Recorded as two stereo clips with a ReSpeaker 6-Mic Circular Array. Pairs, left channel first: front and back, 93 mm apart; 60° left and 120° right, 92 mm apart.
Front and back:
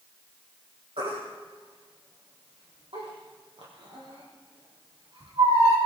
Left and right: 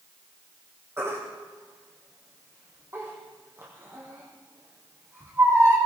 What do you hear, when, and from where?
1.0 s a baby crying: straight behind, 4.5 m